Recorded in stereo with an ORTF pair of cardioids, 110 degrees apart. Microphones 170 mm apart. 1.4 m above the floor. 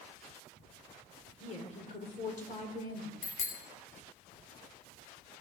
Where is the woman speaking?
40° left, 4 m; by 3.1 s 55° left, 4.5 m.